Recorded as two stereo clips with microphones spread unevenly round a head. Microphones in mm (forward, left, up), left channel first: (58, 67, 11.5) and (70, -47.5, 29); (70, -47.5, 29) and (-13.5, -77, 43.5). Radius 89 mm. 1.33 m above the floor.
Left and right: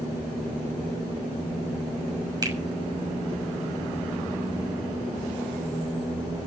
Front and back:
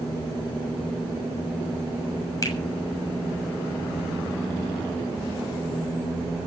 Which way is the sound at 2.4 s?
30° right.